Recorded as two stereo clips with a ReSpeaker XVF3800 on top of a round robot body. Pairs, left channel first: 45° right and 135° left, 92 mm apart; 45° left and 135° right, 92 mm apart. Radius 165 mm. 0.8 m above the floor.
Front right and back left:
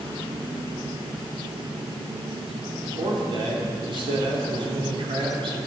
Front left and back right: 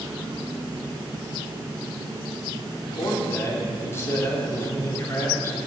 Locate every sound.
2.8 s a man speaking: 110° left, 3 m